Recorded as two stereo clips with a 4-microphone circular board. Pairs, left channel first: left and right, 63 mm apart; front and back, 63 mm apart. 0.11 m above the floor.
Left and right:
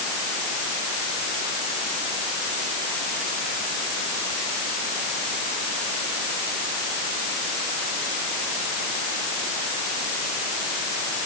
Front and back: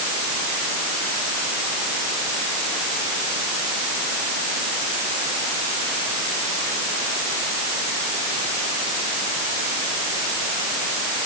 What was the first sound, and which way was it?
Only background noise.